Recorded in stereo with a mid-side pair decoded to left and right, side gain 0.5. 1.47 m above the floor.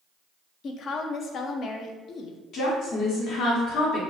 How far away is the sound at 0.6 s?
About 0.6 m.